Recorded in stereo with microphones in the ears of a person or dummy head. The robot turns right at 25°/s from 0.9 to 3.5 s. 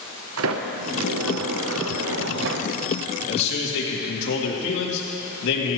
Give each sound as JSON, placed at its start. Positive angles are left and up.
{"t": 0.4, "sound": "a sliding door", "azimuth_deg": -105, "distance_m": 0.9}
{"t": 3.3, "sound": "a man speaking", "side_deg": 60, "distance_m": 2.5}